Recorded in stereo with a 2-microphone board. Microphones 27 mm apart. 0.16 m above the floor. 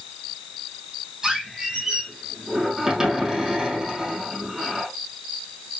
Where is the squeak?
20° right (ahead or behind), 3.5 m.